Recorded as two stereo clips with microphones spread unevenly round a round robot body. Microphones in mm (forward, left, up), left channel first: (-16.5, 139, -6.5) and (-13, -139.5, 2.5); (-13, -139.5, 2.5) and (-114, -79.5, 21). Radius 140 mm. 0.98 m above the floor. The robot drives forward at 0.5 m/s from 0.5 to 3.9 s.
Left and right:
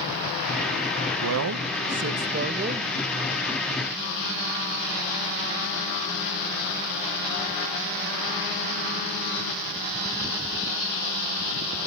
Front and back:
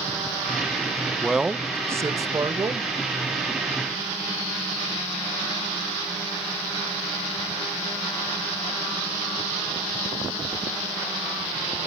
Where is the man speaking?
110° right, 0.7 m; by 2.9 s 155° right, 1.2 m.